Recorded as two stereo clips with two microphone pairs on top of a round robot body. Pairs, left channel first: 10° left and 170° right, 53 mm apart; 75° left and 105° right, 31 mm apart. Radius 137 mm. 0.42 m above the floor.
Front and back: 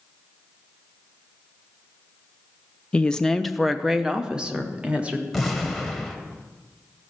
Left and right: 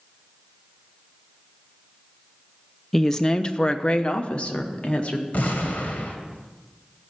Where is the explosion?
105° left, 1.8 m.